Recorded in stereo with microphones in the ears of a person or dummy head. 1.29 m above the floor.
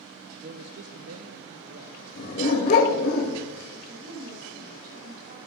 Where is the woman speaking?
45° right (ahead or behind), 6.5 m.